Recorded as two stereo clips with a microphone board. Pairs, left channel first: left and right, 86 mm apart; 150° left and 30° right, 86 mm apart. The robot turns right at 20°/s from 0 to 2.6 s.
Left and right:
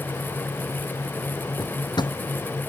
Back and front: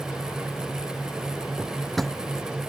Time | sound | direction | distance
1.6 | a drawer | 55° left | ?